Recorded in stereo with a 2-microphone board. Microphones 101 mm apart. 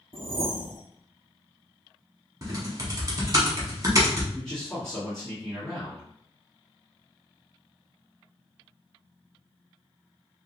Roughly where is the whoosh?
Right.